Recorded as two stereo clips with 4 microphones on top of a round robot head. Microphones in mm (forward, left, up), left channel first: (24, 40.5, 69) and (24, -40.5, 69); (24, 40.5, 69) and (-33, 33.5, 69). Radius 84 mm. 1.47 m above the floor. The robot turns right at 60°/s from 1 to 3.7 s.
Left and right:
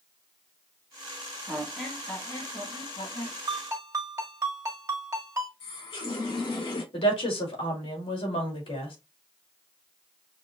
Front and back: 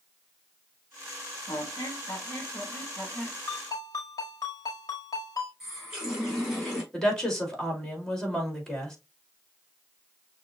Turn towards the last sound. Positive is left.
turn(degrees=90)